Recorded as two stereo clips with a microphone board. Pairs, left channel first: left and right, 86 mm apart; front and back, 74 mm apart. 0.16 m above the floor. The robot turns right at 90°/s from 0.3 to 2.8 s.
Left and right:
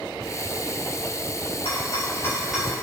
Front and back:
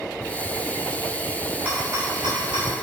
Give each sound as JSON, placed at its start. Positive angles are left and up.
{"t": 1.6, "sound": "a rattle", "azimuth_deg": 105, "distance_m": 5.5}